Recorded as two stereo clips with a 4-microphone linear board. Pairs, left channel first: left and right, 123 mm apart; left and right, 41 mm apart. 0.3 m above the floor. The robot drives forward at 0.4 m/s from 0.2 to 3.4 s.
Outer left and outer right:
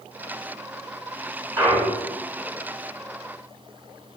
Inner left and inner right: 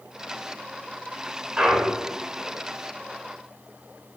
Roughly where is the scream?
I don't hear a scream.